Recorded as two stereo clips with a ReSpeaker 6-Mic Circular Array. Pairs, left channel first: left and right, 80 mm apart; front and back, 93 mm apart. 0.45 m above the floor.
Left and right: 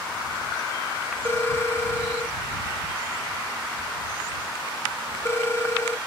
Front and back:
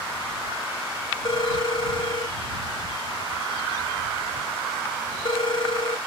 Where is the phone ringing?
30° left.